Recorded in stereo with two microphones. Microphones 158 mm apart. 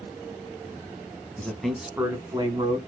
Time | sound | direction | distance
1.4 | a man speaking | 10° left (ahead or behind) | 1.5 m